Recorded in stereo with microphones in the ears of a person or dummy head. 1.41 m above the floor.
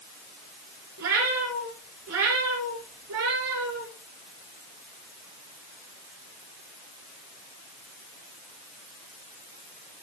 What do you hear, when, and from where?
1.0 s a cat meowing: 70° right (ahead or behind), 5 m; by 3.9 s 75° right (ahead or behind), 5.5 m